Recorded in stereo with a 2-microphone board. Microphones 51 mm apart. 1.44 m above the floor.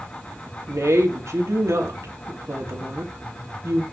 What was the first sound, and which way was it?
A woman speaking, 75° right (ahead or behind).